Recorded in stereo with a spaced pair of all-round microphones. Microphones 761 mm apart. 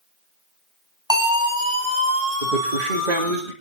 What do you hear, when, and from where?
1.1 s a siren: 5° right (ahead or behind), 5.5 m; by 3.4 s 10° right (ahead or behind), 7.5 m
2.4 s a man speaking: 75° right (ahead or behind), 3 m